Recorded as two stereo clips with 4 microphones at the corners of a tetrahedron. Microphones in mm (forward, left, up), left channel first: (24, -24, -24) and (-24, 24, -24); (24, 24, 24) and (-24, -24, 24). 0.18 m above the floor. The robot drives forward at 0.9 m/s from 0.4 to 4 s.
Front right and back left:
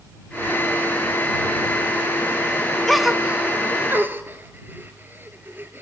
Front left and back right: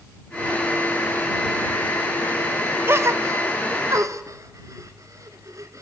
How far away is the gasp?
About 0.6 m.